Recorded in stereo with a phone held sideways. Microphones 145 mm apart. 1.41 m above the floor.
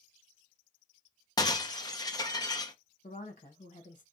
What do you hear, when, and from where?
1.4 s breaking glass: 25° left (ahead or behind), 0.7 m
3.0 s a woman speaking: 60° left (ahead or behind), 1.4 m